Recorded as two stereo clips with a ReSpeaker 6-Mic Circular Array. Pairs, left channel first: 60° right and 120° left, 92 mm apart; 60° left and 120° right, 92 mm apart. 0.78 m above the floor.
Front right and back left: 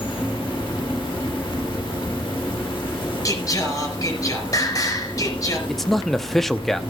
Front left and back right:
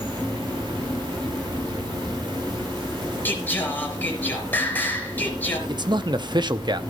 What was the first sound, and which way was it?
An insect, 85° right.